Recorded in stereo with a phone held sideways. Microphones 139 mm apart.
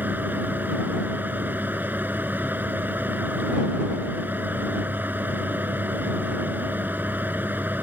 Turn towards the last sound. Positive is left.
turn(degrees=-15)  # may be behind; listen again after turning